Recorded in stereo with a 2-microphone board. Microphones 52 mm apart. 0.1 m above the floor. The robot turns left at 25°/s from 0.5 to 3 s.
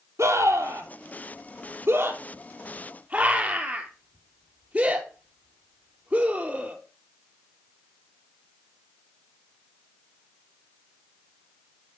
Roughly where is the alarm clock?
No alarm clock in this recording.